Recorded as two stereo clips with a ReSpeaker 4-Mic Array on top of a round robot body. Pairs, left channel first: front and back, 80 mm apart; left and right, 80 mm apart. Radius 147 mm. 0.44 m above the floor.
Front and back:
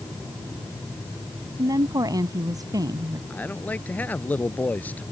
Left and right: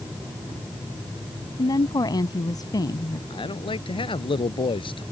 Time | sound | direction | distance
1.6 | a woman speaking | 135° left | ?
3.3 | a man speaking | 70° left | ?